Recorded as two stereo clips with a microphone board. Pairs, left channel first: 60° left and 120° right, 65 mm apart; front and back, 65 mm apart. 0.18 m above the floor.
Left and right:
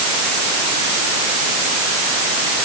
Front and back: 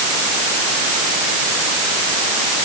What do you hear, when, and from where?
Only background noise.